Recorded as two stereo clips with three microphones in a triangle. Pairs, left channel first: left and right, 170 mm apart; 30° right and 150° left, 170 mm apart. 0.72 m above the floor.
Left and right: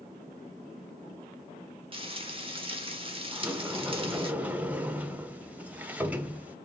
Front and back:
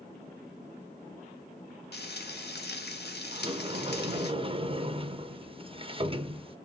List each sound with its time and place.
1.9 s frying: 30° right, 1.0 m
3.3 s a sliding door: 165° right, 0.6 m